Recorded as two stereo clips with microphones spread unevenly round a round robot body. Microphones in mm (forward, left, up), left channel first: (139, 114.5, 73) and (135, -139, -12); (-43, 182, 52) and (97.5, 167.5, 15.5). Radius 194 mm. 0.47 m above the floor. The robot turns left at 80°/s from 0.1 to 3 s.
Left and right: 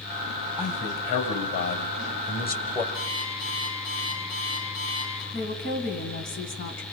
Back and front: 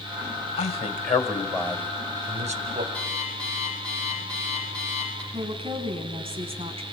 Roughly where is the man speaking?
Behind.